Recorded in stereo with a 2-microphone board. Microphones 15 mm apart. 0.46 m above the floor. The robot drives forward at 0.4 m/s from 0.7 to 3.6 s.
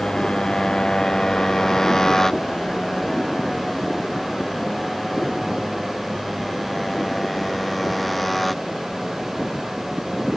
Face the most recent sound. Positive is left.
turn(degrees=5)  # may be behind; listen again after turning